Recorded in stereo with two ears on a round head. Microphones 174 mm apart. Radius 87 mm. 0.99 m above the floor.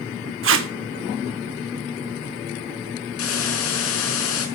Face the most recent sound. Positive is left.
turn(degrees=85)